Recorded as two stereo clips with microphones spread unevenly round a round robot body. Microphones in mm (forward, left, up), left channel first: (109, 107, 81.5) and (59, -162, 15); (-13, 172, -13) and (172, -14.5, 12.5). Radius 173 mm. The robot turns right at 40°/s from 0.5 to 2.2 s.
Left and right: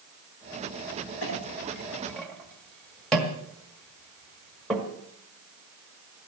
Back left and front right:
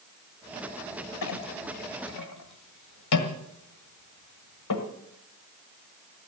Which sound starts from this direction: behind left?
A clink, at 1.2 s.